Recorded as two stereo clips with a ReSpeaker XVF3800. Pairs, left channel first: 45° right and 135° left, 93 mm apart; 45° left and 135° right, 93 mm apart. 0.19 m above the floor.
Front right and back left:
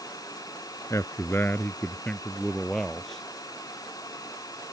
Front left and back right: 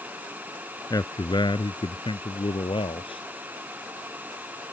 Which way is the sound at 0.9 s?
5° left.